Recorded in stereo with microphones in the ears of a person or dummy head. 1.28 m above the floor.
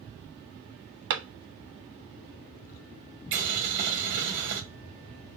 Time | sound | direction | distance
1.1 | a clap | 70° right (ahead or behind) | 1.4 m
3.3 | boiling | 65° right (ahead or behind) | 1.3 m